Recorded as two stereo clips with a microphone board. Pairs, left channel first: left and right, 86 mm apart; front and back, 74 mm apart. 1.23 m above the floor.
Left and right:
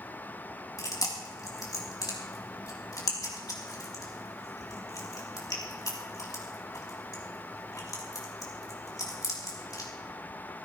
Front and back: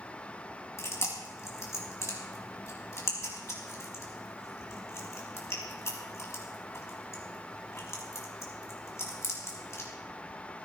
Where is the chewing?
45° left, 3.5 m.